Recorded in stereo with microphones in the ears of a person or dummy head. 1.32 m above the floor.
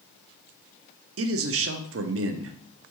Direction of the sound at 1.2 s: 70° right (ahead or behind).